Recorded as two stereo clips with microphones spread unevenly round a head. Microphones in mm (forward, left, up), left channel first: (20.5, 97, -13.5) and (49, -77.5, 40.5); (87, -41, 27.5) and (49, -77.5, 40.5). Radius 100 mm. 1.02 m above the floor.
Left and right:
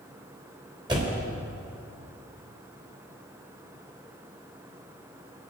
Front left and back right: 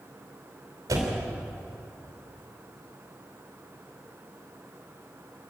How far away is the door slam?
About 3 m.